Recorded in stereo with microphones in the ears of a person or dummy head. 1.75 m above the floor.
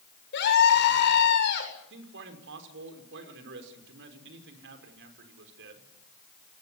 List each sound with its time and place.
0.3 s a scream: 60° left (ahead or behind), 7.5 m
1.9 s a man speaking: 65° right (ahead or behind), 5.5 m